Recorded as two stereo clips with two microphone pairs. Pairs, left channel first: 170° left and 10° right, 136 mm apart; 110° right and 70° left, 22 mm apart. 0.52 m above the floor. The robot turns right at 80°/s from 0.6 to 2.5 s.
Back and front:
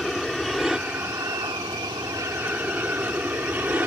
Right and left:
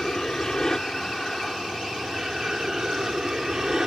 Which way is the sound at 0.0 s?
100° right.